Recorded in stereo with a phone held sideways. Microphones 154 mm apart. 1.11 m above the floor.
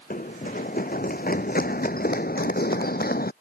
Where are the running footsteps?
60° left (ahead or behind); by 3.3 s 70° left (ahead or behind).